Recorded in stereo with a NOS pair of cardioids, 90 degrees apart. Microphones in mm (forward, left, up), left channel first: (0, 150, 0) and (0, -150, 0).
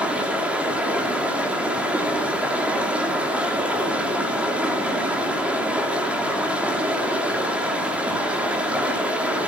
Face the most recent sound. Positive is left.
turn(degrees=-5)